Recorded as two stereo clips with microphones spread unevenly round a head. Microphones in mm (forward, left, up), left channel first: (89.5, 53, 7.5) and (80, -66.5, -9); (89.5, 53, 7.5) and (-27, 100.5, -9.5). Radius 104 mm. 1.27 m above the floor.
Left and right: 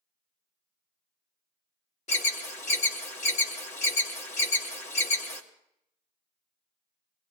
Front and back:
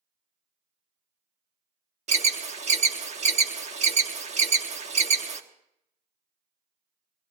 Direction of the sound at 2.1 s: 140° left.